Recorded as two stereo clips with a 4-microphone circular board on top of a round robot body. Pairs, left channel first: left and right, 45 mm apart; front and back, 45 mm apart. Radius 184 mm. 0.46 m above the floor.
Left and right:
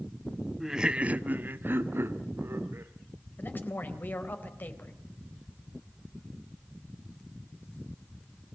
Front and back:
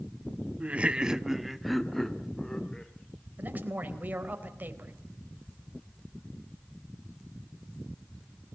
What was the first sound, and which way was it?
Laughter, 170° right.